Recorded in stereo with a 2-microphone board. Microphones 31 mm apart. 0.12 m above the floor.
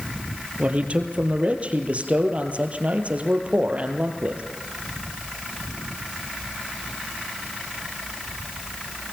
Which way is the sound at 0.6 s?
45° right (ahead or behind).